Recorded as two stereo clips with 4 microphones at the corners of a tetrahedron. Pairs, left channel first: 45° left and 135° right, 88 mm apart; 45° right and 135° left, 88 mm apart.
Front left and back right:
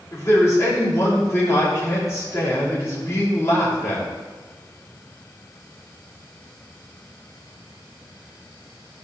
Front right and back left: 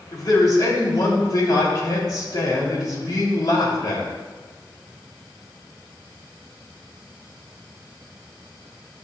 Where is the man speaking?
10° right, 3 m.